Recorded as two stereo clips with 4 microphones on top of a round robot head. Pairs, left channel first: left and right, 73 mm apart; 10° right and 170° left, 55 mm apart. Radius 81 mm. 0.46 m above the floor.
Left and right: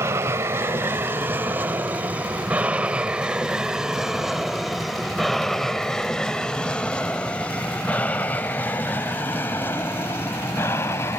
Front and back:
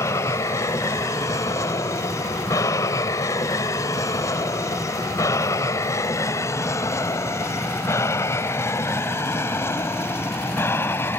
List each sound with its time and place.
0.0 s an aircraft: 35° right; by 11.2 s 35° left